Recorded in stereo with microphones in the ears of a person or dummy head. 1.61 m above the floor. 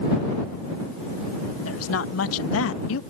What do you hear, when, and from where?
1.6 s a woman speaking: 85° left; by 3.0 s 75° left (ahead or behind)